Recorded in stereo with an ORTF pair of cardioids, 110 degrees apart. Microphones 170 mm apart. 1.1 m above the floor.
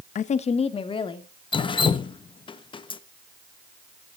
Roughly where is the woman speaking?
Ahead left.